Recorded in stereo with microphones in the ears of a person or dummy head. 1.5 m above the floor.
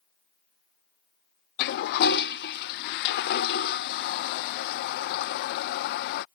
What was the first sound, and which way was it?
A toilet flushing, 50° left (ahead or behind).